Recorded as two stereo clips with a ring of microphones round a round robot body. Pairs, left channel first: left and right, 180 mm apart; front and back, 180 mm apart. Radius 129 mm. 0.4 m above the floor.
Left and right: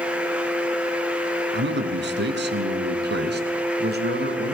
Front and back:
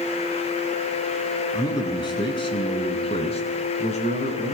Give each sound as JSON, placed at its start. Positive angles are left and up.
{"t": 1.5, "sound": "a man speaking", "azimuth_deg": -75, "distance_m": 4.5}